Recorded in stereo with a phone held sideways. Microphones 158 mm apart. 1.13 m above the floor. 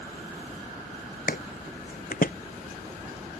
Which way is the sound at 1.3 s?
65° left (ahead or behind).